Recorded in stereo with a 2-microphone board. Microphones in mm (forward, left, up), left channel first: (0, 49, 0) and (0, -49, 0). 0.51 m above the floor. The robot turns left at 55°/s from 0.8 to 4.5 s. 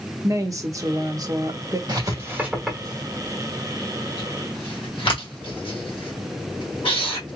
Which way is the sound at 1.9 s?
45° right (ahead or behind).